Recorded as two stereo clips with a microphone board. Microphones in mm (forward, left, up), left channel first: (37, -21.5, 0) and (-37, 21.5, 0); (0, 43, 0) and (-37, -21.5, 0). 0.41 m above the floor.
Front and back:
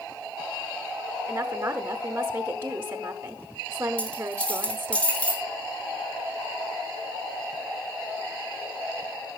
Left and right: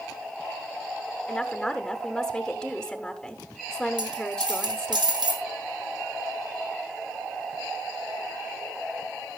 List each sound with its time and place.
1.3 s a woman speaking: 135° left, 1.1 m
4.0 s a dropped coin: 105° right, 3 m